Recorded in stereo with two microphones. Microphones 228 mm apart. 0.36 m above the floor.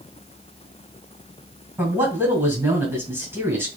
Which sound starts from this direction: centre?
A man speaking, at 1.8 s.